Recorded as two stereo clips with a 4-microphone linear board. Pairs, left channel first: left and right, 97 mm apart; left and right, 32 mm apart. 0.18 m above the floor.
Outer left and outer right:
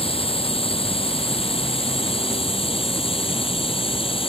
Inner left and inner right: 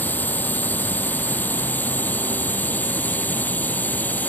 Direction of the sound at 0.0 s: 75° left (ahead or behind).